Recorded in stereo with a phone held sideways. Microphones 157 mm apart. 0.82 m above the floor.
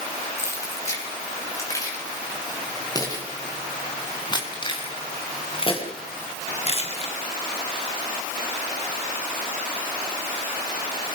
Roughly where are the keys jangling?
Centre.